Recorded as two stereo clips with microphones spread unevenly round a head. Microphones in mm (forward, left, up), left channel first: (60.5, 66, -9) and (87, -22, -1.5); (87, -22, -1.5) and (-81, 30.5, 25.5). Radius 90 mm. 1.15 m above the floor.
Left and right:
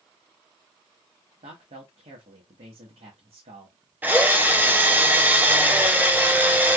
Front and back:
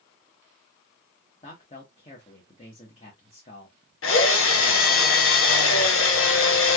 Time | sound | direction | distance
1.4 | a man speaking | 75° right | 1.1 m
4.0 | a drill | 5° right | 0.9 m